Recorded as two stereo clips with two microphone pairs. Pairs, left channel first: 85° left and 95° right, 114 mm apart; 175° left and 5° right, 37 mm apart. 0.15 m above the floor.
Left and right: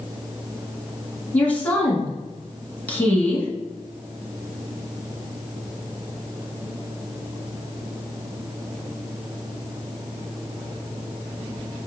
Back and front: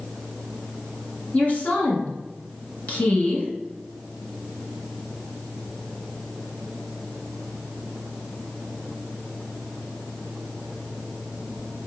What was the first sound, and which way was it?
A woman speaking, 155° left.